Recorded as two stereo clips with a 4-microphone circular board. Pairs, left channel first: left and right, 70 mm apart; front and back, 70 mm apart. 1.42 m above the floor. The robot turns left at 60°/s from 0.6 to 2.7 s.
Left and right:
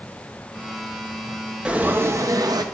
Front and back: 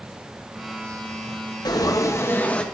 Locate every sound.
1.6 s frying: 15° right, 0.7 m; by 2.6 s 75° right, 0.7 m